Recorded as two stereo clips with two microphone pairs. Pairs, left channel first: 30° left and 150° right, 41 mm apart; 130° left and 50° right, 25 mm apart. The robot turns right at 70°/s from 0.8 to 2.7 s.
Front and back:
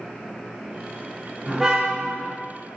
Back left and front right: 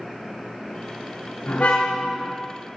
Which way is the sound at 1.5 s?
125° left.